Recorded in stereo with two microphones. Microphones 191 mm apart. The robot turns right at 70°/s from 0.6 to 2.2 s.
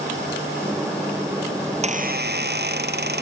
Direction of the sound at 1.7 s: 155° right.